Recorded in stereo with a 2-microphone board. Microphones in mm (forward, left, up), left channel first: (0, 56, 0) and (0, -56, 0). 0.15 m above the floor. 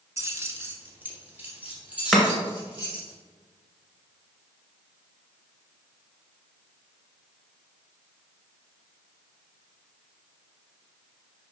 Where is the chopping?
Centre (ahead or behind), 1.9 m.